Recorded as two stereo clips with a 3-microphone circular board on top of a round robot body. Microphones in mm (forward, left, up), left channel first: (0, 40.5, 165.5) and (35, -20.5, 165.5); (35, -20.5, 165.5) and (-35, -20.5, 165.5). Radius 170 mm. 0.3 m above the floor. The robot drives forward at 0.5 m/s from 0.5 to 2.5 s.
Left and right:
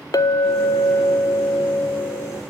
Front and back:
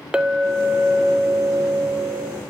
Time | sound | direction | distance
0.1 | a clink | 105° left | 0.7 m